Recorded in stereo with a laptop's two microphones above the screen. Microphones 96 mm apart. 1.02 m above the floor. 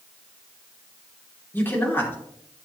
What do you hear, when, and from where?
1.5 s a man speaking: 25° left (ahead or behind), 2.5 m